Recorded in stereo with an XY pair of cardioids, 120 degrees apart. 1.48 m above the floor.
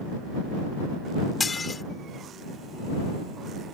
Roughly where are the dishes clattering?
Ahead left.